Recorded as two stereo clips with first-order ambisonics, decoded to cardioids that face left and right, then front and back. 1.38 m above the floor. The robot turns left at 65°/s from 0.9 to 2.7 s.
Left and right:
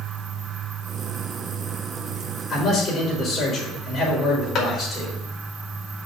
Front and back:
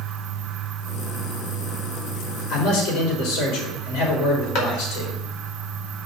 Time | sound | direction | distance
2.5 | a man speaking | 25° left | 4.5 m
4.5 | a clap | 30° left | 2.5 m